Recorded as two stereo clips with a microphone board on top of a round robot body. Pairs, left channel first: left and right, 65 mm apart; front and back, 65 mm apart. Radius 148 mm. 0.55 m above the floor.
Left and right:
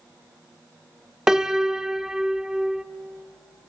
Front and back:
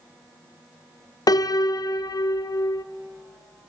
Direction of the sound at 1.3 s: 10° right.